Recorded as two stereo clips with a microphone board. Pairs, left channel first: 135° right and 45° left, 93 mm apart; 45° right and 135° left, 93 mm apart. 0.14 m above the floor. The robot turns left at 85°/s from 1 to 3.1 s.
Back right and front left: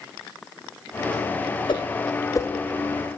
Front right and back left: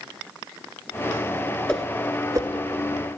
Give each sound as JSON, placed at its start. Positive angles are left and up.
{"t": 1.7, "sound": "a whoosh", "azimuth_deg": -125, "distance_m": 0.8}